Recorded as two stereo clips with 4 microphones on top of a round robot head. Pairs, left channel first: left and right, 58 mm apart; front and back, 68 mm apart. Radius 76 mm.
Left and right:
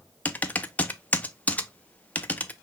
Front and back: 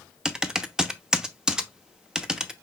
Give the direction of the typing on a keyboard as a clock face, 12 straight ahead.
8 o'clock.